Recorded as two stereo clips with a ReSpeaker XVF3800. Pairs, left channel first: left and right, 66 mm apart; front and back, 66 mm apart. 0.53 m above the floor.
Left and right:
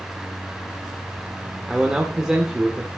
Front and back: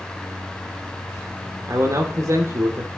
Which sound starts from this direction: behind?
A man speaking, at 1.7 s.